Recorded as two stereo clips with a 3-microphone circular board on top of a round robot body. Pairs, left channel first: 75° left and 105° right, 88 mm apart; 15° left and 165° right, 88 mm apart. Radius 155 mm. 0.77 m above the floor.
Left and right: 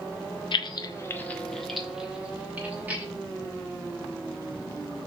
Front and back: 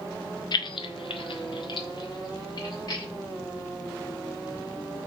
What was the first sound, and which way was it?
Keys jangling, 50° left.